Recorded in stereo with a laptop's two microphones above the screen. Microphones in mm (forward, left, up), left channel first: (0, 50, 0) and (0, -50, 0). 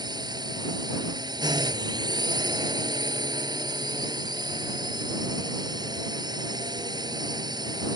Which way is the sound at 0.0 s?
45° right (ahead or behind).